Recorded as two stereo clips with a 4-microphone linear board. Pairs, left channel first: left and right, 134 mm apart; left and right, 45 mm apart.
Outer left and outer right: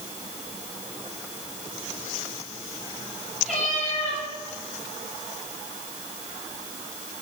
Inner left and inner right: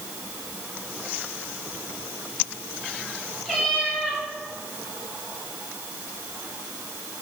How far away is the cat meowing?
About 4.5 m.